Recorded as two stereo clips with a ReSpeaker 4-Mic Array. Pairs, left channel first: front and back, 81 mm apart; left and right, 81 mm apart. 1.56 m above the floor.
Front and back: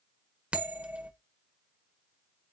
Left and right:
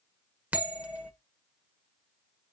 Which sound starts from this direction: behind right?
A bell, at 0.5 s.